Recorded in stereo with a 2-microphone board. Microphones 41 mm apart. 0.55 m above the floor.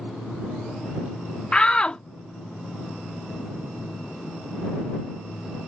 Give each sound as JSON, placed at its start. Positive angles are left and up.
{"t": 1.5, "sound": "a shout", "side_deg": 25}